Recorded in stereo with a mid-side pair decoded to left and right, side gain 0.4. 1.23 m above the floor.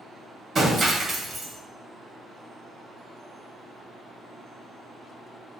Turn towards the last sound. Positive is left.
turn(degrees=-45)